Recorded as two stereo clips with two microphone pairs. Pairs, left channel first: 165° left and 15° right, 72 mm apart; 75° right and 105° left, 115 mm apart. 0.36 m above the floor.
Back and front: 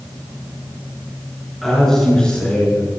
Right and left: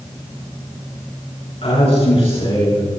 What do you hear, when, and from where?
1.6 s a man speaking: 105° right, 4.5 m; by 2.9 s 120° right, 4.5 m